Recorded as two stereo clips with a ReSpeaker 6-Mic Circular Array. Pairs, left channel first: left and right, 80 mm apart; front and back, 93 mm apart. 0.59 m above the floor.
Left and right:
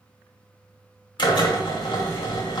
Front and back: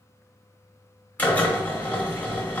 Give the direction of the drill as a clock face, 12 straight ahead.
10 o'clock.